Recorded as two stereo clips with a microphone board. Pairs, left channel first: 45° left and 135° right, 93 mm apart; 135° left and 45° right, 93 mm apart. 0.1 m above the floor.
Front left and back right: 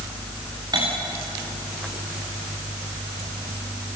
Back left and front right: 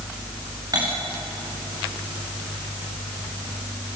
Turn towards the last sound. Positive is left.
turn(degrees=-95)